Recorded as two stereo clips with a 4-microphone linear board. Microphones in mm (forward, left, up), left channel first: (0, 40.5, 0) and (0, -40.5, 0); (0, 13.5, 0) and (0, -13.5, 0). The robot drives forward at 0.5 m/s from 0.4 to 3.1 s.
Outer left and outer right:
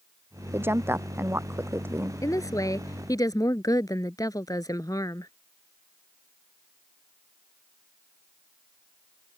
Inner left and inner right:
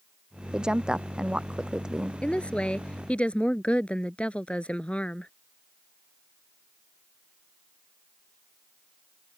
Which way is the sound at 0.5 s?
30° right (ahead or behind).